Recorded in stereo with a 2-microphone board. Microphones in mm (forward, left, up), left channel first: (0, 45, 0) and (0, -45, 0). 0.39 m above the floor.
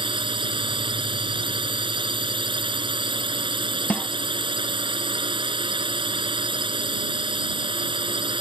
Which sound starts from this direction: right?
A drone, at 0.0 s.